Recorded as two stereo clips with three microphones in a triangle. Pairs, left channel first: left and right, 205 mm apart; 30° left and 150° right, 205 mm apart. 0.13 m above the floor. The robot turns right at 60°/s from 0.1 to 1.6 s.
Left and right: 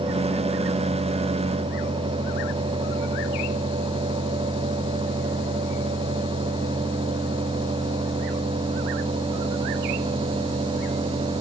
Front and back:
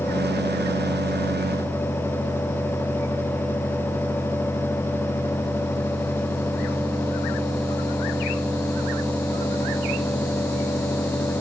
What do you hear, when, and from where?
Only background noise.